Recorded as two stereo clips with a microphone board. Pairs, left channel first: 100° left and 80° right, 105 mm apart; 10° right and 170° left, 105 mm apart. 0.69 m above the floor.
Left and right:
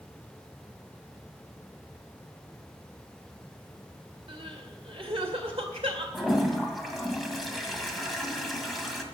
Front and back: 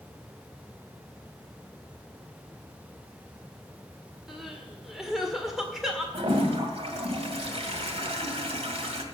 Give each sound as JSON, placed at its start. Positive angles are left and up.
{"t": 4.3, "sound": "crying", "azimuth_deg": -105, "distance_m": 2.0}
{"t": 6.1, "sound": "a toilet flushing", "azimuth_deg": -170, "distance_m": 1.8}